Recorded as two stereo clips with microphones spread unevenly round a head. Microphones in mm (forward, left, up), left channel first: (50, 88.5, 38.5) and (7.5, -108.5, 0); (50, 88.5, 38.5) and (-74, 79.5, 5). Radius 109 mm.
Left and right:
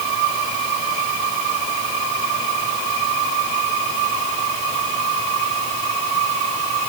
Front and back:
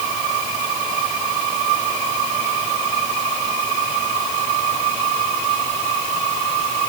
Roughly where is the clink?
I don't hear a clink.